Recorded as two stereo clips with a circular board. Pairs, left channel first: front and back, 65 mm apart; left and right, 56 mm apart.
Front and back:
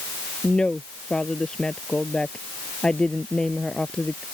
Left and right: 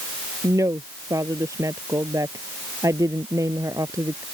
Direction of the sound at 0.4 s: 75° right.